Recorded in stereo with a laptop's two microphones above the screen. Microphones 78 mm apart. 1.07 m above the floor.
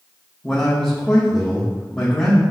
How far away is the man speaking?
About 1.3 m.